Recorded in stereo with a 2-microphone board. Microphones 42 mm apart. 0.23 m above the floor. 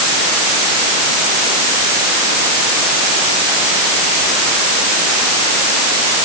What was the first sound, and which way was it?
Only background noise.